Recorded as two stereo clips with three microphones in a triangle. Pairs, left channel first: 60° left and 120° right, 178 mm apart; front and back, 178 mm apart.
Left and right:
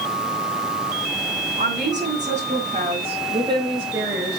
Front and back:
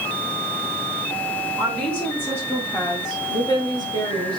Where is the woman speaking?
95° right, 2.5 m; by 4.4 s 40° right, 1.8 m.